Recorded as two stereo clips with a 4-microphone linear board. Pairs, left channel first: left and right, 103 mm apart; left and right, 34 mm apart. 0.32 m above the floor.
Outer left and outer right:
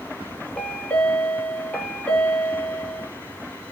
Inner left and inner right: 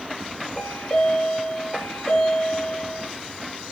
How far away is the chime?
About 0.7 m.